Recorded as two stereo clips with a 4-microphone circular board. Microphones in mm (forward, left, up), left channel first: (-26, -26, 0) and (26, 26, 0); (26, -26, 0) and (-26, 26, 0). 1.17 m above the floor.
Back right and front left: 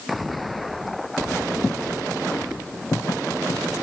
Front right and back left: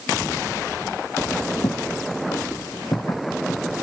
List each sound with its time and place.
1.6 s footsteps: 60° right; by 3.6 s 90° right